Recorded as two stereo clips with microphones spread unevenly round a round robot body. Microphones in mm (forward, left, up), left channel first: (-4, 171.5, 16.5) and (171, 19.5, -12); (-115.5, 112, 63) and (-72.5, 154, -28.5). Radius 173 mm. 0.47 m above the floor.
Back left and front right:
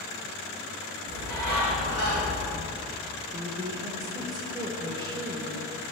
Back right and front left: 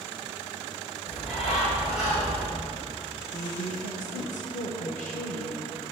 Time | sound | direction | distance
1.1 | a bird | 125° right | 3 m
3.3 | a woman speaking | 95° right | 0.9 m